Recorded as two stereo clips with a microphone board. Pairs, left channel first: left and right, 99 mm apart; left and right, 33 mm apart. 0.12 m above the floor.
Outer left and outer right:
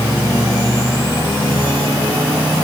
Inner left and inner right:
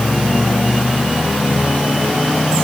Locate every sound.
Only background noise.